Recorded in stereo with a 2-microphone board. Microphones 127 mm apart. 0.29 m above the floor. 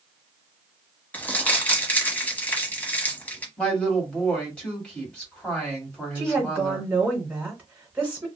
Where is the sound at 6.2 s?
10° right (ahead or behind), 0.9 m.